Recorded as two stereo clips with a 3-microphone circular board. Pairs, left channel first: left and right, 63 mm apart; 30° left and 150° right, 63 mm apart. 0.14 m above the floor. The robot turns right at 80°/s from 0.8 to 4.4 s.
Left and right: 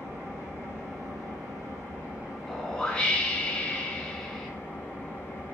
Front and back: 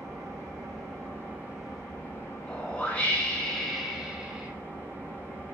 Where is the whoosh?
10° left, 0.8 m; by 4.5 s 160° left, 0.8 m.